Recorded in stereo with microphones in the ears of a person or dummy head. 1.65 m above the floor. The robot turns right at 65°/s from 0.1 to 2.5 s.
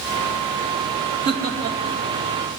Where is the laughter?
55° right (ahead or behind), 2.5 m; by 2.0 s 10° right (ahead or behind), 2.5 m.